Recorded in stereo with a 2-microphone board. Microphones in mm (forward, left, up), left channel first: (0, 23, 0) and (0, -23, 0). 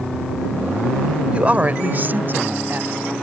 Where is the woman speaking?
25° right (ahead or behind); by 3.1 s 50° right (ahead or behind).